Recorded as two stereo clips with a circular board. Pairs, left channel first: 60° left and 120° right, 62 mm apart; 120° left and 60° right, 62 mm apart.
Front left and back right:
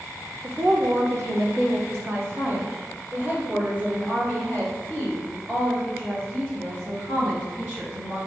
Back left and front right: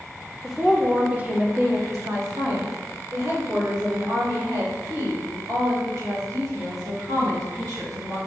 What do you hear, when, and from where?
0.4 s a woman speaking: 150° right, 1.1 m; by 8.2 s 55° right, 5.5 m